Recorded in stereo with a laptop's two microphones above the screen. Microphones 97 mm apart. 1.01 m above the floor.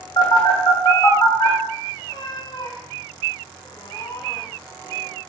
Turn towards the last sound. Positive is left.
turn(degrees=50)  # may be behind; listen again after turning